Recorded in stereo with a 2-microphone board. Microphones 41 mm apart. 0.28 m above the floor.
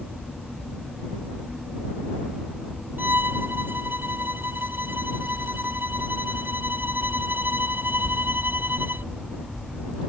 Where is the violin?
55° right (ahead or behind).